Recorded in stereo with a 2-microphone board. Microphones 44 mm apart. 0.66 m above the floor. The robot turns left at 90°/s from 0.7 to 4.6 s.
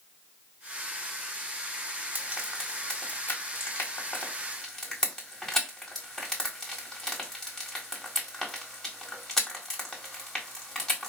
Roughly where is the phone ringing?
I don't hear a phone ringing.